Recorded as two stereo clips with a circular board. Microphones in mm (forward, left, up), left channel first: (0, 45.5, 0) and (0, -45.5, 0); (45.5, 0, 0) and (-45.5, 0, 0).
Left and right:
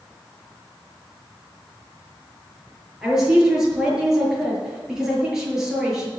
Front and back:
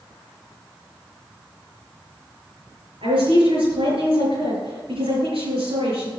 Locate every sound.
3.0 s a woman speaking: 175° right, 6.5 m